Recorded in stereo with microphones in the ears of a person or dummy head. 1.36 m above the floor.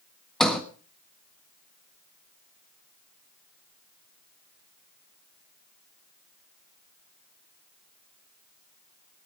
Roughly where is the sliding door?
Centre.